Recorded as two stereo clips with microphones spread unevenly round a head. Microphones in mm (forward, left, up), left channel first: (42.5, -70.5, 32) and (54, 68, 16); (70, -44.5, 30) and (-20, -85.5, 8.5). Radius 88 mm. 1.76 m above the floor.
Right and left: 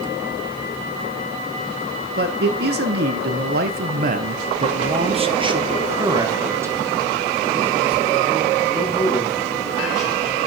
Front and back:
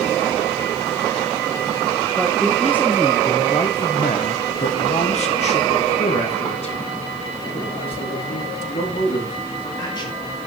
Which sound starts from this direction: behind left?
A man speaking, at 2.2 s.